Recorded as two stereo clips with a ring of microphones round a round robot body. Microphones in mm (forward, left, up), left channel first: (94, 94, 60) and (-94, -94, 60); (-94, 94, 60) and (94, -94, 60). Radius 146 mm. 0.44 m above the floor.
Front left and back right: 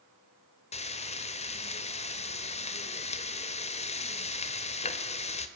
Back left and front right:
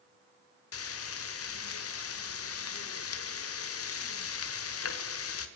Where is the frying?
110° left, 1.7 m.